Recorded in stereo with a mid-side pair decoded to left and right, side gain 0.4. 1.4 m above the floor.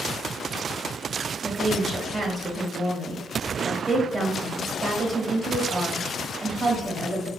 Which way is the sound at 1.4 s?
35° right.